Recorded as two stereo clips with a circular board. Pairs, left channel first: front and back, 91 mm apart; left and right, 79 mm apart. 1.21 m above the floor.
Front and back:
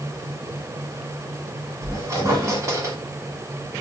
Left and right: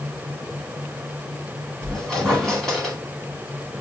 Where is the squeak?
175° left, 1.2 m.